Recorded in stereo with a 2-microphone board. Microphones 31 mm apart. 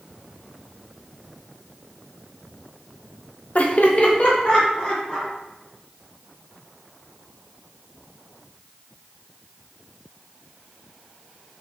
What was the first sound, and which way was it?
Laughter, 45° left (ahead or behind).